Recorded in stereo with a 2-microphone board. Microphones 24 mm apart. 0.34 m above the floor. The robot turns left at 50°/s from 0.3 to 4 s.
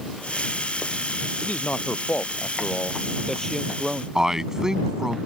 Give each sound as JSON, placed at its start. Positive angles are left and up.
{"t": 1.4, "sound": "a man speaking", "azimuth_deg": 120}
{"t": 4.2, "sound": "a man speaking", "side_deg": -25}